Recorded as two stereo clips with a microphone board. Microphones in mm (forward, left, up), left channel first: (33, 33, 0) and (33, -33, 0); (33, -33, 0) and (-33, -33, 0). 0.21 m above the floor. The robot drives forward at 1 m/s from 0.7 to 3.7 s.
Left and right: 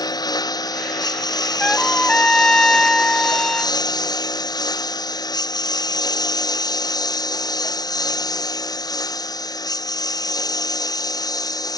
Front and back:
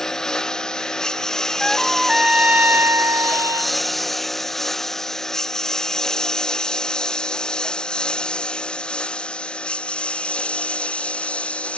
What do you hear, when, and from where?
0.0 s a lawn mower: 85° left; by 11.8 s 70° left
1.6 s a trumpet: 50° left; by 3.8 s 170° left